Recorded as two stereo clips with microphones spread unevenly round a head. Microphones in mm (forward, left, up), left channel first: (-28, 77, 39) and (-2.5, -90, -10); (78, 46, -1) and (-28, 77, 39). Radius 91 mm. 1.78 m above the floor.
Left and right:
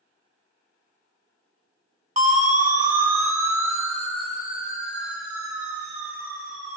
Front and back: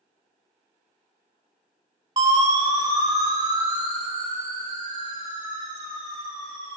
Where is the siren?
135° right, 2 m.